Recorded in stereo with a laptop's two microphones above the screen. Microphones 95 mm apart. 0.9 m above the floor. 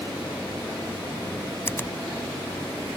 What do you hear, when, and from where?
1.7 s a finger snap: 25° left (ahead or behind)